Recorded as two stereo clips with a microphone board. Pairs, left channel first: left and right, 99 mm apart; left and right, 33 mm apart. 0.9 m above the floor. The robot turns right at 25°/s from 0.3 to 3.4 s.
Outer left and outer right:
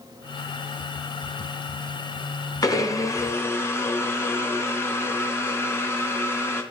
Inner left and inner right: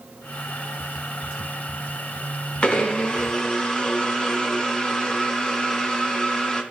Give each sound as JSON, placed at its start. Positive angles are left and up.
{"t": 2.6, "sound": "a blender", "side_deg": 40, "distance_m": 1.0}